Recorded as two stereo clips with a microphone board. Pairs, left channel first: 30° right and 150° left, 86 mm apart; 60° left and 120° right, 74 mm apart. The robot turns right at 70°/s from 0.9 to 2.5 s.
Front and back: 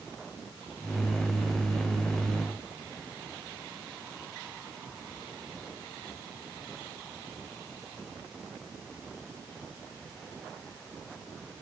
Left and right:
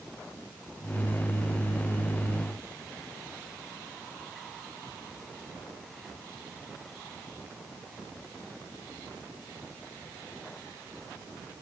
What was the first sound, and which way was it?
Only background noise.